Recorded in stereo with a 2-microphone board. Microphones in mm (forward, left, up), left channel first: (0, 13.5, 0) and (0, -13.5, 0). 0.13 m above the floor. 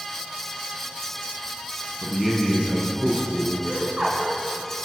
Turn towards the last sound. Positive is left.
turn(degrees=-35)  # may be behind; listen again after turning